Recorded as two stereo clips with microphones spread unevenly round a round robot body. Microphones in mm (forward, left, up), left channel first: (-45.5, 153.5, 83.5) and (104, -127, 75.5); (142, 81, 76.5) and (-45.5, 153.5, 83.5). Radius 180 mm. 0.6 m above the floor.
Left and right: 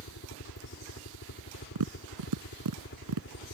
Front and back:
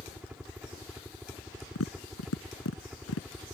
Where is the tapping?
35° right.